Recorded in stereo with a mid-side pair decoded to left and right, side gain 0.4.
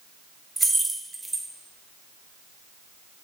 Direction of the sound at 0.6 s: 20° right.